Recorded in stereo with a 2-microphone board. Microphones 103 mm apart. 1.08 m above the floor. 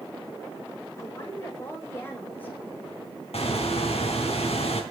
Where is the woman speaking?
35° left (ahead or behind), 4.5 m; by 3.0 s 15° left (ahead or behind), 5.5 m.